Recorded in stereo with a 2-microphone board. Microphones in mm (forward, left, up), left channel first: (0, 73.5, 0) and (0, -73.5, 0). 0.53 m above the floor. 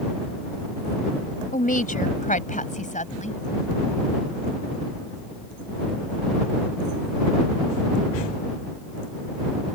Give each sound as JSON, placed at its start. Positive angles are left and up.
{"t": 1.5, "sound": "a woman speaking", "side_deg": 65}